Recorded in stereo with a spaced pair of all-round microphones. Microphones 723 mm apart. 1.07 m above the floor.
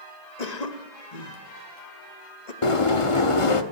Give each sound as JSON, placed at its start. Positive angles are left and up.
{"t": 0.4, "sound": "a cough", "side_deg": 65, "distance_m": 1.4}
{"t": 2.6, "sound": "a sliding door", "side_deg": 45, "distance_m": 1.1}